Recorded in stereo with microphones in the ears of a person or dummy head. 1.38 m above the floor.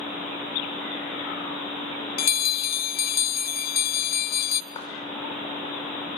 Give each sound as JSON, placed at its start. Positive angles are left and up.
{"t": 2.2, "sound": "a bell", "side_deg": 50, "distance_m": 0.5}
{"t": 4.7, "sound": "a clap", "side_deg": 25, "distance_m": 5.0}